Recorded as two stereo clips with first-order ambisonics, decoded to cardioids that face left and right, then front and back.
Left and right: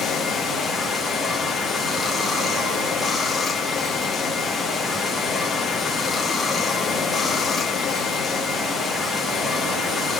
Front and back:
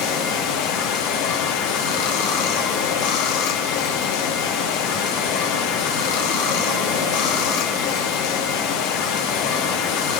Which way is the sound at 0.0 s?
10° left.